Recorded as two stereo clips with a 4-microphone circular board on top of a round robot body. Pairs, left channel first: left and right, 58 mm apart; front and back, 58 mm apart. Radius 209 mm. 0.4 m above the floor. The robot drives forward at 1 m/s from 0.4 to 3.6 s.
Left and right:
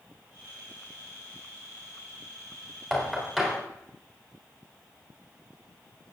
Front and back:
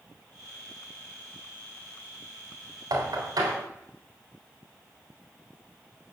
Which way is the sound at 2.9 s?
Straight behind.